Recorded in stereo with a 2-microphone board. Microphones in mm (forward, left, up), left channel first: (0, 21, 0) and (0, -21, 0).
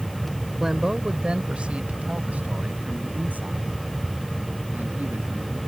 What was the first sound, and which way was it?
A man speaking, 10° right (ahead or behind).